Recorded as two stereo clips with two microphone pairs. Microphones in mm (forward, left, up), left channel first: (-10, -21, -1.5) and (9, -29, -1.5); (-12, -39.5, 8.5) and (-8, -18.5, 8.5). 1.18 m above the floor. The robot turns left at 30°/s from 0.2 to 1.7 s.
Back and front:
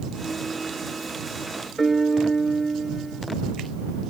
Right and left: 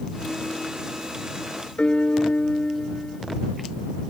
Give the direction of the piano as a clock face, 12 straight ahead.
4 o'clock.